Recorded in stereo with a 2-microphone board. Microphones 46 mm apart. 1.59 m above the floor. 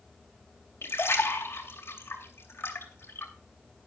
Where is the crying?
I don't hear crying.